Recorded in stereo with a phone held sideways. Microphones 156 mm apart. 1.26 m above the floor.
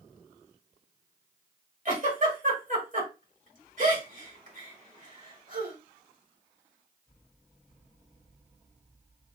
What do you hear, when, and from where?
1.9 s a giggle: 55° right (ahead or behind), 2.5 m